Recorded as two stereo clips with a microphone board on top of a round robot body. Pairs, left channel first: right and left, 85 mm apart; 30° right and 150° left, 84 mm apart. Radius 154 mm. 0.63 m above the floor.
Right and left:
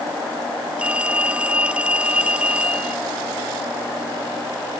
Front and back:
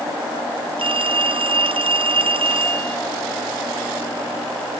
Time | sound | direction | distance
0.8 | a phone ringing | 165° left | ?